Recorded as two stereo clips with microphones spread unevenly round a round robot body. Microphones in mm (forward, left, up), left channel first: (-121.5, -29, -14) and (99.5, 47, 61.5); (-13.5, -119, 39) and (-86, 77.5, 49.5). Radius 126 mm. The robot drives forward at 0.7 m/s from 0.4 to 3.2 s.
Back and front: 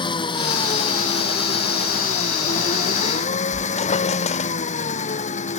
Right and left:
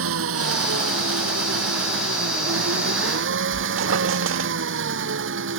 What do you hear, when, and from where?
0.0 s an engine running: 125° left; by 5.6 s 135° left
3.5 s a squeak: 130° left